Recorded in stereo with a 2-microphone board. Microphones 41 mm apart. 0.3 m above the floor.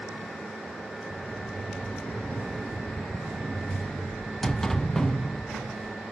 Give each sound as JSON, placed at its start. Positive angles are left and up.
{"t": 1.1, "sound": "a sliding door", "side_deg": 10, "distance_m": 0.5}